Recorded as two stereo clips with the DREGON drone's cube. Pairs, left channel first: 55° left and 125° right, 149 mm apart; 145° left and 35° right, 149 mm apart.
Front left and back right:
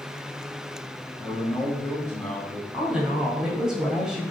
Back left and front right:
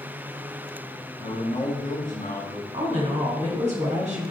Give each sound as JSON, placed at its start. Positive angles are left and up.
{"t": 1.2, "sound": "a man speaking", "azimuth_deg": 120, "distance_m": 2.0}
{"t": 2.7, "sound": "a woman speaking", "azimuth_deg": -40, "distance_m": 1.9}